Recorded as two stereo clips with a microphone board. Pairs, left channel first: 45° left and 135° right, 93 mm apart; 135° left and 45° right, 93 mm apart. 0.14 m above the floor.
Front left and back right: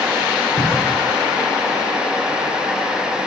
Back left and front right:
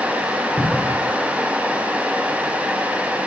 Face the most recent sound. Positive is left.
turn(degrees=65)